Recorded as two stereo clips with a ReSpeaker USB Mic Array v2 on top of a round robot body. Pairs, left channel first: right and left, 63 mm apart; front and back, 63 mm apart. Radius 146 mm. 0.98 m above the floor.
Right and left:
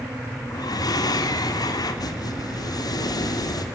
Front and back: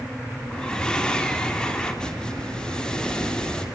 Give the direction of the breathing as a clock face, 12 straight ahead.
3 o'clock.